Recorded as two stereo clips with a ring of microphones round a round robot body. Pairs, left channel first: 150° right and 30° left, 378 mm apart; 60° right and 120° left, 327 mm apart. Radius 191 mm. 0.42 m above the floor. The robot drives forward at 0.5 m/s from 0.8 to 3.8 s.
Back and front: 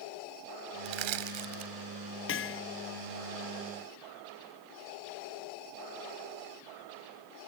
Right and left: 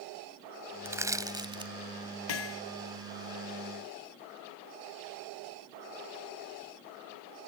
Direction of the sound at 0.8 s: 35° left.